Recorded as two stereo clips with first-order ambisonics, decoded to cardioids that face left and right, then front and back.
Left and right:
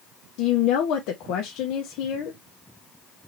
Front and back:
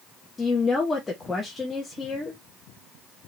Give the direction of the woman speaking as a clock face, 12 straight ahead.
9 o'clock.